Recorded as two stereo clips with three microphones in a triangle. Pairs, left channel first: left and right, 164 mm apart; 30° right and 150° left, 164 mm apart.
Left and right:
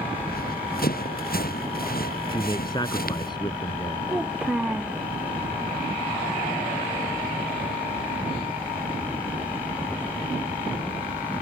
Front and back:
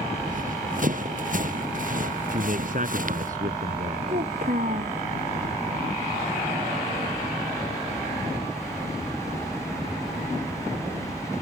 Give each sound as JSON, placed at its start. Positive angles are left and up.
{"t": 0.2, "sound": "running footsteps", "azimuth_deg": 115}
{"t": 2.3, "sound": "a man speaking", "azimuth_deg": 145}
{"t": 4.1, "sound": "a child speaking", "azimuth_deg": -175}